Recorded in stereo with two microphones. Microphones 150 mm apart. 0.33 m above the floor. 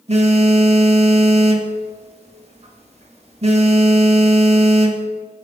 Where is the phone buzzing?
45° right (ahead or behind), 0.9 m.